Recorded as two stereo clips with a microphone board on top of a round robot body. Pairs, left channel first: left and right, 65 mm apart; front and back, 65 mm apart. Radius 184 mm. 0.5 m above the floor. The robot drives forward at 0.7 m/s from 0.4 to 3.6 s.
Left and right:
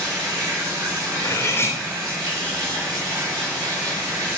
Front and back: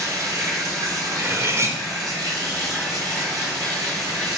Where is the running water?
130° right, 3.5 m; by 4.4 s 150° right, 5.5 m.